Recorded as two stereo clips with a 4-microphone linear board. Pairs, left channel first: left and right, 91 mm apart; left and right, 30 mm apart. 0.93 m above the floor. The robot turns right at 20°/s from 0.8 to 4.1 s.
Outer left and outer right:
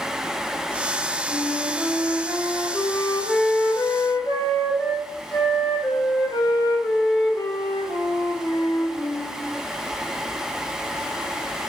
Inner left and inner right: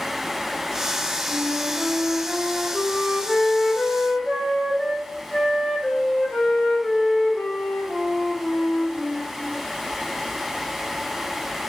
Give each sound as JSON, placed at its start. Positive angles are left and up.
{"t": 1.3, "sound": "a flute", "azimuth_deg": -15, "distance_m": 3.0}